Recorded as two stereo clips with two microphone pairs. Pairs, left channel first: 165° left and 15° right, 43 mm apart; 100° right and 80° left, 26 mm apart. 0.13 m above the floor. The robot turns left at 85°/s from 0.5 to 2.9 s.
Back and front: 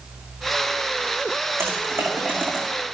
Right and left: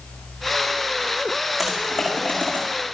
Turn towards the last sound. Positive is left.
turn(degrees=-110)